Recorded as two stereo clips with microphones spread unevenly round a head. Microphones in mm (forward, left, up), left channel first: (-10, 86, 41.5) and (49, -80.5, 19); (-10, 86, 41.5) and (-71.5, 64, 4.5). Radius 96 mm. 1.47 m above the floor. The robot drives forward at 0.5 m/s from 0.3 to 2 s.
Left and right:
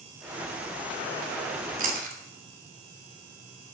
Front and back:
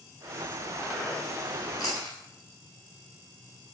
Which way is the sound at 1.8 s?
25° right.